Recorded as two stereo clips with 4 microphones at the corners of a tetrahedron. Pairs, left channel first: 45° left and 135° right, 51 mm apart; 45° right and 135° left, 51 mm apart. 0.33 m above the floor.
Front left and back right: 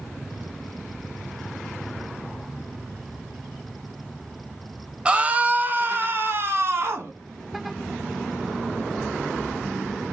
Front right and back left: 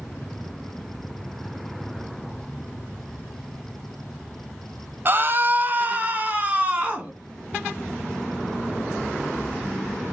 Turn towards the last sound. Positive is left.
turn(degrees=-165)